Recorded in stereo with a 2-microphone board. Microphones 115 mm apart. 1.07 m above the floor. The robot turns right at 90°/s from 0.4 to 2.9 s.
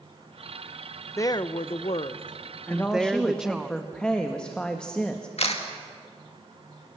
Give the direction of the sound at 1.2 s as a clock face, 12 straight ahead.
11 o'clock.